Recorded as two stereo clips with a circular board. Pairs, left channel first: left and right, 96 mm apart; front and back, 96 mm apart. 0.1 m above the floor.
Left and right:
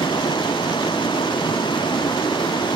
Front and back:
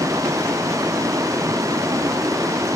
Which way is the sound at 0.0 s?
125° left.